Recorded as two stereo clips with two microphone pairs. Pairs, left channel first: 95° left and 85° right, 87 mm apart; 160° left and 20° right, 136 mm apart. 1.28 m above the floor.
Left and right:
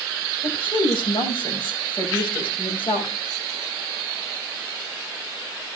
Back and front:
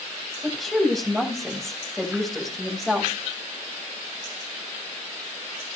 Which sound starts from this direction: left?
A woman speaking, at 0.4 s.